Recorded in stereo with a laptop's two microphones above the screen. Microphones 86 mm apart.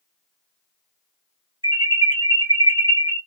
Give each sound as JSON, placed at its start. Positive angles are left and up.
{"t": 1.6, "sound": "an alarm", "side_deg": -75, "distance_m": 2.0}